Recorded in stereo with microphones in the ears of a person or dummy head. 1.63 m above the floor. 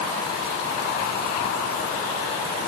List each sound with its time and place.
Only background noise.